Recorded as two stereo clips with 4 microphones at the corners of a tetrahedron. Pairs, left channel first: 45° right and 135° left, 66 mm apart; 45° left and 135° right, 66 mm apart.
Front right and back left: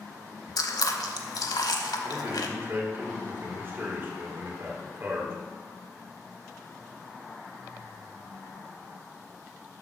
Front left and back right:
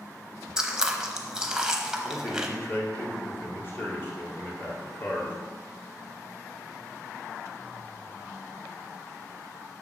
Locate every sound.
0.6 s chewing: 55° right, 0.8 m
2.0 s a man speaking: 95° left, 1.8 m